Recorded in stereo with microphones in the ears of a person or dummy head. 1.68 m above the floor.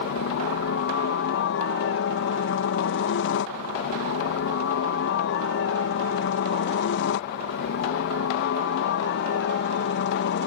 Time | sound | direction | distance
0.0 | a helicopter | 60° left (ahead or behind) | ?